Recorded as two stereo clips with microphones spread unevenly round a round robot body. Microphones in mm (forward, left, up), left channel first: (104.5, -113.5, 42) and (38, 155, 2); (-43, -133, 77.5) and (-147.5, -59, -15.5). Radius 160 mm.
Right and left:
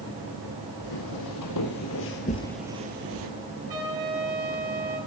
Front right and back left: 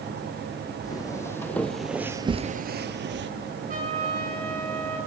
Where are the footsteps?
85° right, 1.9 m; by 3.3 s 150° left, 1.1 m.